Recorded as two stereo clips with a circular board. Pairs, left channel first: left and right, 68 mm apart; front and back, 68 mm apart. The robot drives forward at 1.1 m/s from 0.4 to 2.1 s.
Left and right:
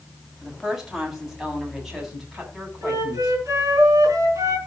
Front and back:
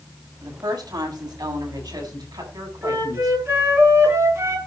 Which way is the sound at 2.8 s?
130° right.